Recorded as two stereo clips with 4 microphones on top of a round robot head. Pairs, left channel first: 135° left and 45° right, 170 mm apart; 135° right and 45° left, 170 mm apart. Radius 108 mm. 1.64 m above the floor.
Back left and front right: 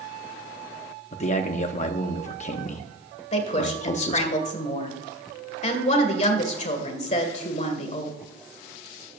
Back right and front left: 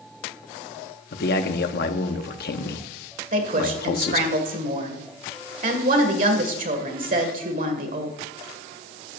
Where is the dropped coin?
I don't hear a dropped coin.